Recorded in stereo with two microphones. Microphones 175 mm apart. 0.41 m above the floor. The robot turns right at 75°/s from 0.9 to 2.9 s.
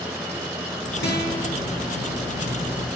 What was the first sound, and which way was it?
A guitar, 75° left.